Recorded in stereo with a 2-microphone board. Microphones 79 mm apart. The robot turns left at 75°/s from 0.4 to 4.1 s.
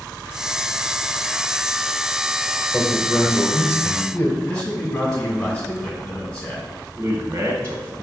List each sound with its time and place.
2.7 s a man speaking: 10° left (ahead or behind), 1.3 m; by 4.4 s 20° left (ahead or behind), 1.3 m
4.5 s a man speaking: 5° left (ahead or behind), 2 m
7.0 s a man speaking: 35° right (ahead or behind), 0.9 m